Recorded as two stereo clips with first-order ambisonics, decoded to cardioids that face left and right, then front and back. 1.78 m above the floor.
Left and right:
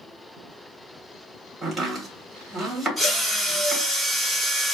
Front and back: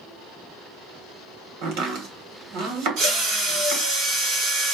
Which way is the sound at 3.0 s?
175° left.